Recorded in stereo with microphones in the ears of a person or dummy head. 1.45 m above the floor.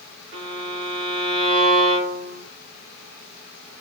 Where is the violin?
65° right (ahead or behind), 0.9 m.